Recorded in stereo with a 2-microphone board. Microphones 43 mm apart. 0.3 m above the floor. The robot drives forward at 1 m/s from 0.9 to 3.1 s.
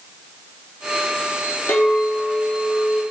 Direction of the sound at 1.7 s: 60° left (ahead or behind).